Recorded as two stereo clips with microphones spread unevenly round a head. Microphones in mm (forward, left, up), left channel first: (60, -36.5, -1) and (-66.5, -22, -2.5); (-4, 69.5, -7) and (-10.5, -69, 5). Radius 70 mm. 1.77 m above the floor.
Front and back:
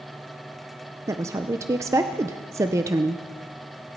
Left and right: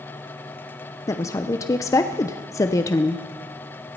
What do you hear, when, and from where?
1.1 s a woman speaking: 135° left, 0.7 m